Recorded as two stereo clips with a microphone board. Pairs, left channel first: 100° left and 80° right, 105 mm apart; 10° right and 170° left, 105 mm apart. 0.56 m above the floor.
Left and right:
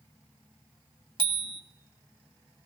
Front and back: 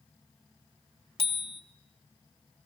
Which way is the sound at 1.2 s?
40° right.